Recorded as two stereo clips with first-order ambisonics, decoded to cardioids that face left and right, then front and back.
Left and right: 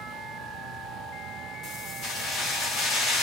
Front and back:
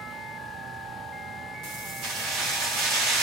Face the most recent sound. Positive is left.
turn(degrees=145)